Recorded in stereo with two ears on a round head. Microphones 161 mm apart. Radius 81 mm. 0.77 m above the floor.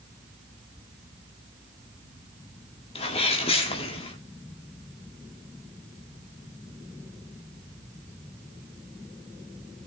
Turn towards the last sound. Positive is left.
turn(degrees=35)  # may be behind; listen again after turning